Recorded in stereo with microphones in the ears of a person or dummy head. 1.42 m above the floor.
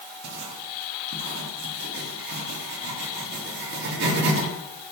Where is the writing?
65° right (ahead or behind), 2.5 m.